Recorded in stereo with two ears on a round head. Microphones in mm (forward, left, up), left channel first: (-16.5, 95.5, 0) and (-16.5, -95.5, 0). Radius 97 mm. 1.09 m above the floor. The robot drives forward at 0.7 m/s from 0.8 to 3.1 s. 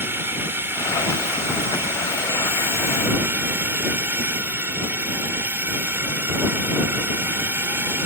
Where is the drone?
10° right (ahead or behind).